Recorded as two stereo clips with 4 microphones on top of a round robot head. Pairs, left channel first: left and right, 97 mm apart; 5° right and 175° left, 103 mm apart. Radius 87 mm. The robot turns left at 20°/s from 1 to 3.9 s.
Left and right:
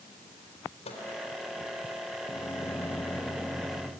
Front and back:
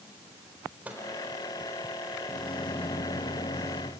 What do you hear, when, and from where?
0.8 s a microwave: 100° left, 4 m
2.3 s a microwave: 30° left, 0.9 m; by 3.9 s 5° right, 0.9 m